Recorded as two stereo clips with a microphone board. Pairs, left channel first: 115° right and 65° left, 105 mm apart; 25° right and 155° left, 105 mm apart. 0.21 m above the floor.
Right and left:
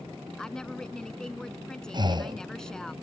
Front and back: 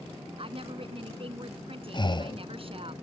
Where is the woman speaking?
165° left.